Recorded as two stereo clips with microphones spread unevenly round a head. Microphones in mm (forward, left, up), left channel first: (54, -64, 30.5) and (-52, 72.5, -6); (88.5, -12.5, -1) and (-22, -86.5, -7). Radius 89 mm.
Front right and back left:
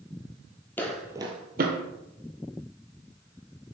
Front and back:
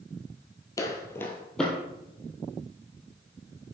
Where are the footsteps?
Straight ahead, 1.2 m; by 1.8 s 120° left, 1.4 m.